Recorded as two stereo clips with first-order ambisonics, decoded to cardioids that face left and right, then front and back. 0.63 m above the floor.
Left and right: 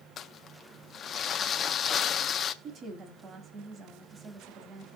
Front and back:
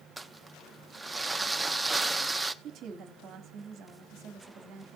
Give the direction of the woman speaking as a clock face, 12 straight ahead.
5 o'clock.